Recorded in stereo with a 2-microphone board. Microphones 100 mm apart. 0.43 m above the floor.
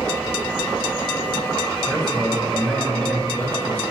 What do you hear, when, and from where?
1.9 s a man speaking: 5° right (ahead or behind), 3.5 m; by 3.8 s 20° left (ahead or behind), 3.5 m